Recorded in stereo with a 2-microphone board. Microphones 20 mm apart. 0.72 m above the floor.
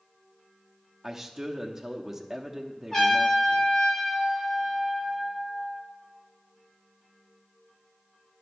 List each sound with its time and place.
1.0 s a man speaking: 25° right (ahead or behind), 0.9 m
2.9 s a trumpet: 25° left (ahead or behind), 4 m